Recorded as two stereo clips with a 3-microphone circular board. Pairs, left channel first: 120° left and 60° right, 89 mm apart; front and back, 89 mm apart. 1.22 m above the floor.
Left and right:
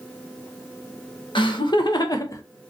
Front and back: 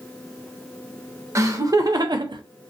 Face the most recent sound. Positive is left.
turn(degrees=170)